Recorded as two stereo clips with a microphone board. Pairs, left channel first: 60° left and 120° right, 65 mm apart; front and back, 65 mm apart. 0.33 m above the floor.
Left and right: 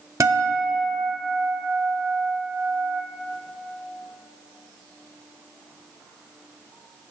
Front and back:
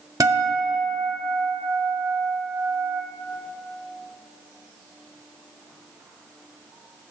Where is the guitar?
160° right, 0.5 m.